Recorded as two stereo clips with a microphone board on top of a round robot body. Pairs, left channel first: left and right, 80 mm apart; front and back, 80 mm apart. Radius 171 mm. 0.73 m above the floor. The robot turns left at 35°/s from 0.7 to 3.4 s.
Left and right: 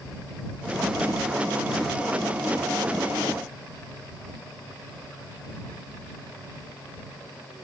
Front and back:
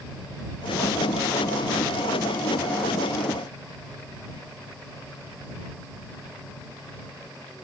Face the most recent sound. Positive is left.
No sound to turn to.